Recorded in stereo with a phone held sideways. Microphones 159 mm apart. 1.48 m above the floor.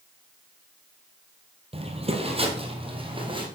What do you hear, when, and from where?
1.7 s footsteps: 40° right (ahead or behind), 1.8 m; by 3.5 s 30° right (ahead or behind), 3 m